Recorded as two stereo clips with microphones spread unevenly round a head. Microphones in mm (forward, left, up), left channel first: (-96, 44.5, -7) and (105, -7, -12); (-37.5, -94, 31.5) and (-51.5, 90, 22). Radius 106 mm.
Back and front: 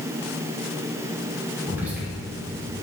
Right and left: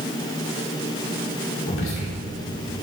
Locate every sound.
1.7 s whispering: 95° right, 4 m